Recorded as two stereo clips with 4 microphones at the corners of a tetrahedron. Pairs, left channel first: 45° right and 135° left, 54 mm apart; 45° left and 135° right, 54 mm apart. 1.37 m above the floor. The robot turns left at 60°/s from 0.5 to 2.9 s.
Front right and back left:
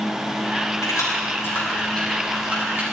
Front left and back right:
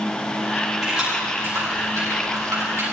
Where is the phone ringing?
I don't hear a phone ringing.